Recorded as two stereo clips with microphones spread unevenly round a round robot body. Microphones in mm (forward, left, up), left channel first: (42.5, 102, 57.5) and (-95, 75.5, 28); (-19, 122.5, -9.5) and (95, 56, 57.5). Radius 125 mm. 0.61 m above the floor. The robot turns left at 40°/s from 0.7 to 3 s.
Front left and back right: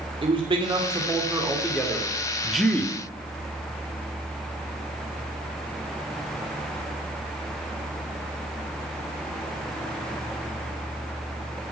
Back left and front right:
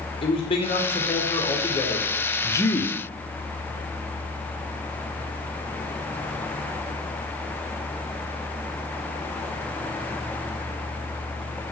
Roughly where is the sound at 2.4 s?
Behind left.